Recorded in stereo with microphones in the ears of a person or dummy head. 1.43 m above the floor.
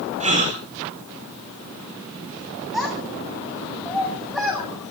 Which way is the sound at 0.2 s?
45° right (ahead or behind).